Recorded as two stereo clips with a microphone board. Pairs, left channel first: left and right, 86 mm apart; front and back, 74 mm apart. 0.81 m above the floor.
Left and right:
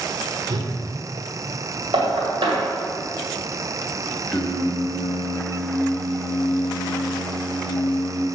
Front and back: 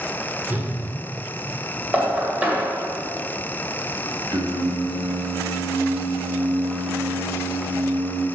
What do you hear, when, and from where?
0.5 s a whoosh: 115° right, 1.4 m
1.9 s knocking: 110° right, 2 m
4.3 s singing: 175° left, 0.9 m